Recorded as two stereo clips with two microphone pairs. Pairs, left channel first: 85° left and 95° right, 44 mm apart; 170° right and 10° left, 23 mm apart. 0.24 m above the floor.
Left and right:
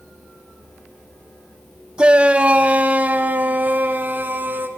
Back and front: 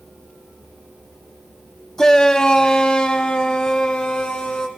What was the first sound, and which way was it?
A shout, 130° right.